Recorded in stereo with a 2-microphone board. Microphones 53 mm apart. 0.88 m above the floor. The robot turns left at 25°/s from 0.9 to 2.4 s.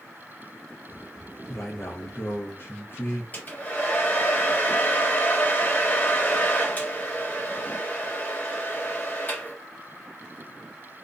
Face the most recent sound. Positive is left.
turn(degrees=30)  # may be behind; listen again after turning